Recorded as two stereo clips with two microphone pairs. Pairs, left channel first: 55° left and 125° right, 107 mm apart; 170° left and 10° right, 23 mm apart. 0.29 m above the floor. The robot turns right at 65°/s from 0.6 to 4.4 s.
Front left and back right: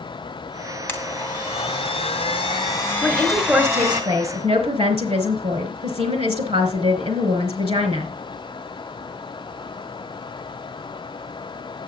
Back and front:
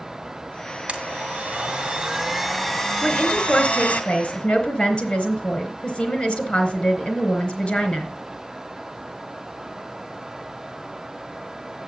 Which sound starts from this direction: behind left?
A woman speaking, at 3.0 s.